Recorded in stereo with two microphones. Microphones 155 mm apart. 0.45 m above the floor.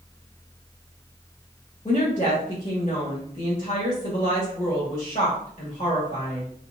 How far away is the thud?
I don't hear a thud.